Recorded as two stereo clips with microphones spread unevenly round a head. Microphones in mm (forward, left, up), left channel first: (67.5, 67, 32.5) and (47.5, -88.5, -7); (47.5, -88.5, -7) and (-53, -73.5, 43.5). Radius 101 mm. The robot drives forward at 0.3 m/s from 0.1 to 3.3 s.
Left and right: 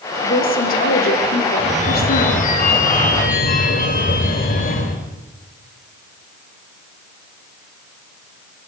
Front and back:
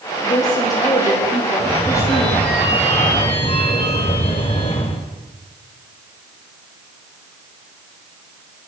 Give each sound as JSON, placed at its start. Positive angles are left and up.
{"t": 0.2, "sound": "a woman speaking", "azimuth_deg": 55, "distance_m": 4.5}
{"t": 1.6, "sound": "a phone ringing", "azimuth_deg": 45, "distance_m": 3.5}